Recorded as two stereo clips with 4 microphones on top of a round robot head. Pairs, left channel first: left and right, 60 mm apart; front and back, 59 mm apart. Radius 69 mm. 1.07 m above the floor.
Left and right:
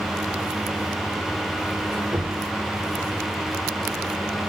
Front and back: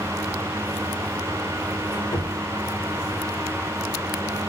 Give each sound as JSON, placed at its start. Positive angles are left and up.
{"t": 1.8, "sound": "a squeak", "azimuth_deg": -20, "distance_m": 1.9}